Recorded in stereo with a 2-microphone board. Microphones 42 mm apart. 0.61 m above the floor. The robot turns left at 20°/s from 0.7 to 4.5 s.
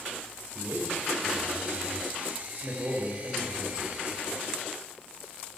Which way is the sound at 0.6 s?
80° right.